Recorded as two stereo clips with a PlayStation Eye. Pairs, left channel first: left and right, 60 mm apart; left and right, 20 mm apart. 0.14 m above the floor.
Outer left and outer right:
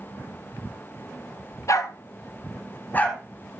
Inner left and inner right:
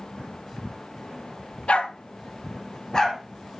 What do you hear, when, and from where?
1.7 s a dog barking: 60° left (ahead or behind), 1.0 m; by 3.2 s 25° left (ahead or behind), 2.0 m